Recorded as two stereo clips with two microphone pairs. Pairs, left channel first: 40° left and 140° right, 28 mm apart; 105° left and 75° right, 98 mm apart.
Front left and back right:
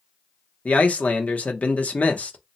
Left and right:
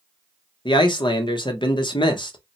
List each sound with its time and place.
0.7 s a man speaking: 65° left, 0.7 m